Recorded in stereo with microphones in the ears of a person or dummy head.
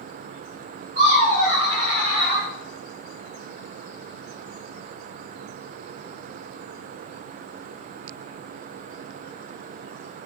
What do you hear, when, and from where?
0.9 s laughter: 45° right (ahead or behind), 2 m; by 2.5 s 30° right (ahead or behind), 0.8 m